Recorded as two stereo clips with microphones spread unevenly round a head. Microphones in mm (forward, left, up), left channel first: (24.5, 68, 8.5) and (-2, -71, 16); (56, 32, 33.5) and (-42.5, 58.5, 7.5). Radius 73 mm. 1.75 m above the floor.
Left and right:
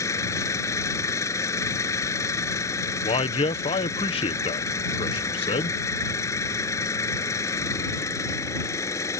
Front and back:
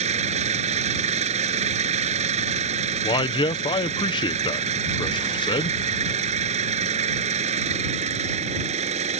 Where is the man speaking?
25° left.